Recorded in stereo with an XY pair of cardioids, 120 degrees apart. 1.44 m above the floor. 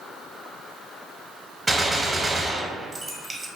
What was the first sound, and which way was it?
A gunshot, 20° right.